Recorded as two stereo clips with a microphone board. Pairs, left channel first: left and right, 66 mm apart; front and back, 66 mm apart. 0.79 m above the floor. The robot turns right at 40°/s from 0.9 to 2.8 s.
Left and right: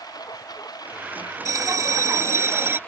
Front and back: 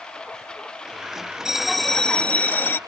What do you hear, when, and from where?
0.0 s a lawn mower: 80° left; by 2.9 s 155° left
1.4 s a bell: 100° right; by 2.8 s 45° right